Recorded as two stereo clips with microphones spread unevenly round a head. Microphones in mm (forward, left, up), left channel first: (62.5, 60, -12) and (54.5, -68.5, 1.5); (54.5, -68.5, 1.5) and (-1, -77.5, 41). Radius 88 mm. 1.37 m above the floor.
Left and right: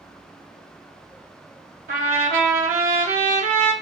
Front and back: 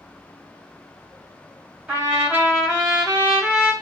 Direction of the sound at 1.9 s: 105° right.